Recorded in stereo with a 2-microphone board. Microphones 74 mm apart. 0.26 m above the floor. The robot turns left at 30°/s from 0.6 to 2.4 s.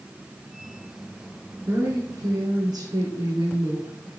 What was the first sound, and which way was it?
A woman speaking, 45° right (ahead or behind).